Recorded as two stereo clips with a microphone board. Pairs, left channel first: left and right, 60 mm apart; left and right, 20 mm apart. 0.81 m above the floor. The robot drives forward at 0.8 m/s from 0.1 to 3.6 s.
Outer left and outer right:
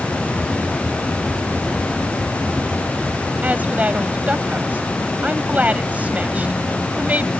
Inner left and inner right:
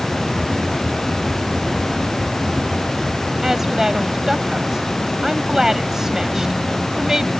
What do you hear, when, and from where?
3.4 s a woman speaking: 25° right (ahead or behind)